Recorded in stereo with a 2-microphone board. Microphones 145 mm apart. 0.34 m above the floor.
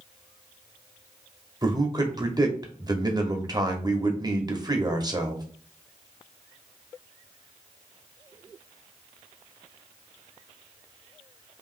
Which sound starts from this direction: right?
A man speaking, at 1.6 s.